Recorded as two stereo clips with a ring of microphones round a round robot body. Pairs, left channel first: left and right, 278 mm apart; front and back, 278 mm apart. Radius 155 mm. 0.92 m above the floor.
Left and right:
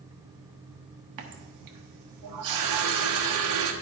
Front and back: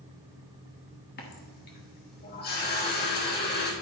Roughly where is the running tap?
Ahead right.